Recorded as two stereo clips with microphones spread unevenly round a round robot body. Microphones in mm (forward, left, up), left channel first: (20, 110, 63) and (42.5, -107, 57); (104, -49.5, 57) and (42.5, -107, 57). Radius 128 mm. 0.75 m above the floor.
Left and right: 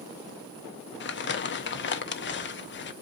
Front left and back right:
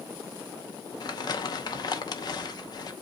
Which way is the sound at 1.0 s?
70° left.